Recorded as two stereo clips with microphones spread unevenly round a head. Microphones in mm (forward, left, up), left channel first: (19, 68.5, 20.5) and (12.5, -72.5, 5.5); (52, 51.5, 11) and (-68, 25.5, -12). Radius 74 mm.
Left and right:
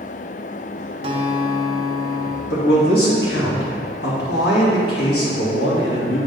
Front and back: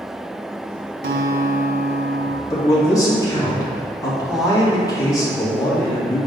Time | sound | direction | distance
1.0 | a guitar | 150° right | 0.8 m
2.5 | a man speaking | 75° left | 2.5 m